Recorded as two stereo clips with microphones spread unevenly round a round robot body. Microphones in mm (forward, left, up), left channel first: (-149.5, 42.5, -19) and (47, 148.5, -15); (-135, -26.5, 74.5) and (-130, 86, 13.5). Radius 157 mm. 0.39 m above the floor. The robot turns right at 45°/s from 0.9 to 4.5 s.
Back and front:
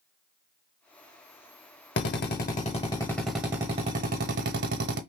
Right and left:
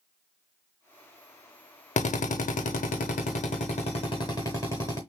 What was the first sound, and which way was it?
A drill, 120° right.